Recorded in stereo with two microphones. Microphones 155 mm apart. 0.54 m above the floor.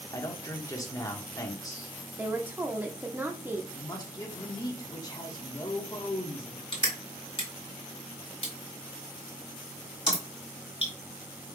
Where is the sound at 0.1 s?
20° left (ahead or behind), 1.1 m.